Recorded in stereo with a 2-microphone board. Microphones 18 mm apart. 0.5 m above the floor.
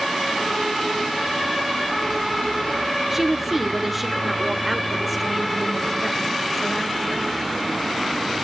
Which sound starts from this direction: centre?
A woman speaking, at 3.1 s.